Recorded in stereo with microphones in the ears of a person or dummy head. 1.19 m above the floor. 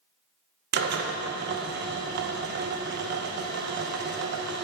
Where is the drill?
55° right (ahead or behind), 0.9 m.